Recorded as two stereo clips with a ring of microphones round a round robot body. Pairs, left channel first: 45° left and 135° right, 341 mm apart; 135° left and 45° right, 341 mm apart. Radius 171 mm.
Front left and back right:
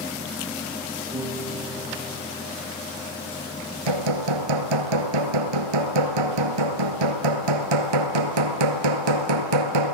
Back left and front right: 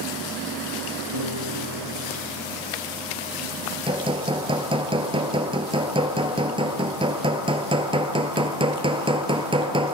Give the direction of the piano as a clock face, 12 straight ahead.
2 o'clock.